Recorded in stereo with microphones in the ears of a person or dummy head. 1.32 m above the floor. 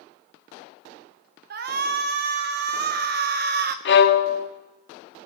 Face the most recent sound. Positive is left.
turn(degrees=55)  # may be behind; listen again after turning